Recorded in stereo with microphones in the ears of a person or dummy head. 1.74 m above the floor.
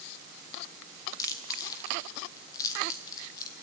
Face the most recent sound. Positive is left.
turn(degrees=20)  # may be behind; listen again after turning